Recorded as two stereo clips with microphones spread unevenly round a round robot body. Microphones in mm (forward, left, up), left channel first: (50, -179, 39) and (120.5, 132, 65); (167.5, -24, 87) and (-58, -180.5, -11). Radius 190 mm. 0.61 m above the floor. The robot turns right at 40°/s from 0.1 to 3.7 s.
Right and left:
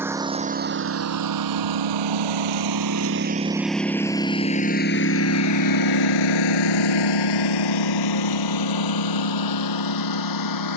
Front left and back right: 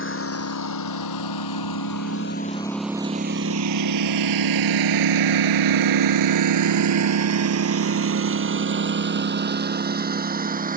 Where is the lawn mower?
5° right; by 10.8 s 80° right.